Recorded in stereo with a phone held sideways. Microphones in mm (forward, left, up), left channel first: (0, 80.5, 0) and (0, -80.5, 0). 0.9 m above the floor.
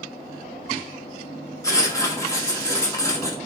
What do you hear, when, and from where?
1.6 s writing: 20° left (ahead or behind), 1.0 m